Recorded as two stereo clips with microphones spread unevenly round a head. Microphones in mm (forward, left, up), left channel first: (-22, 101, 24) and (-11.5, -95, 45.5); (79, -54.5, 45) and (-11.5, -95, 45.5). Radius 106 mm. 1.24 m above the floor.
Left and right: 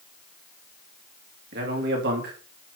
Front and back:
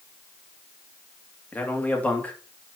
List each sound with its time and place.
1.5 s a man speaking: 50° right, 3 m